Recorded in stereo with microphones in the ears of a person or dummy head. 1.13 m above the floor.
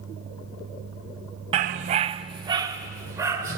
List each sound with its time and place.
1.5 s a dog barking: 25° right (ahead or behind), 0.6 m; by 3.6 s 15° right (ahead or behind), 2.5 m